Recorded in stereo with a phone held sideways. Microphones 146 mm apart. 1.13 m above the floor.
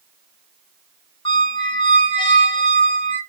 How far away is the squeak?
About 1.0 m.